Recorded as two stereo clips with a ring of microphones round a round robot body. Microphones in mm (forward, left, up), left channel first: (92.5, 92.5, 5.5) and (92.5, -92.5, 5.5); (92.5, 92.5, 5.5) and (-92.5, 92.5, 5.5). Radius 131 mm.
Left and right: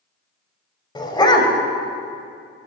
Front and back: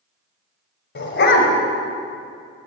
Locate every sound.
0.9 s a dog barking: 25° left, 2.5 m